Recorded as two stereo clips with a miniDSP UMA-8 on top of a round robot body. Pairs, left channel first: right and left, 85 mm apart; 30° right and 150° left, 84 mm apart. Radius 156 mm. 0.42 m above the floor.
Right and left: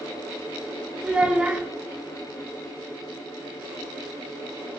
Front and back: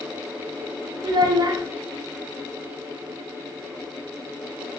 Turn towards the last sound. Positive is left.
turn(degrees=165)